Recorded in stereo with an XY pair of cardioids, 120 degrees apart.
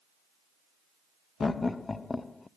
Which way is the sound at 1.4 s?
20° left.